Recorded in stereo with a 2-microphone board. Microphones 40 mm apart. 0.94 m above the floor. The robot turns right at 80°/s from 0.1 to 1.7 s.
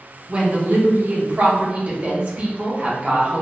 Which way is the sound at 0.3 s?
155° right.